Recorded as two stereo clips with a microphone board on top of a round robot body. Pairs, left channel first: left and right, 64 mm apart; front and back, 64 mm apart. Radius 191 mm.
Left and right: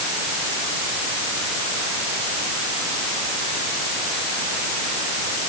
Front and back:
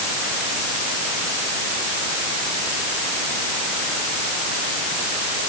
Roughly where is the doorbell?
I don't hear a doorbell.